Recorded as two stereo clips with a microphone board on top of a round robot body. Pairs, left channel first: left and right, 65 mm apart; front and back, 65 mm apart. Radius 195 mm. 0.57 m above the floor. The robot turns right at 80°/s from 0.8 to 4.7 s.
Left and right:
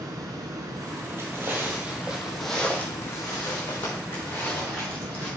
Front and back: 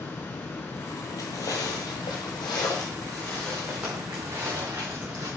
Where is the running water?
60° right, 0.9 m; by 5.4 s 110° right, 0.9 m.